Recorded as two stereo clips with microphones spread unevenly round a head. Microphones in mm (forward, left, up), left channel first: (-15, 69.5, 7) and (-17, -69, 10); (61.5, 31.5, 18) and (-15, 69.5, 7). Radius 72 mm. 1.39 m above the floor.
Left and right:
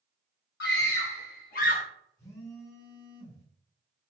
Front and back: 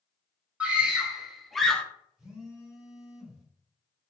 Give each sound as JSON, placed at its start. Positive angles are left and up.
{"t": 0.6, "sound": "a scream", "azimuth_deg": 80, "distance_m": 1.3}
{"t": 2.2, "sound": "a phone buzzing", "azimuth_deg": 70, "distance_m": 1.6}